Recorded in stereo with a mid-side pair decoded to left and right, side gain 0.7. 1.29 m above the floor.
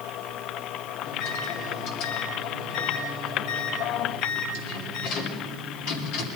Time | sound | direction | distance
1.1 | a microwave | 65° left | 2.5 m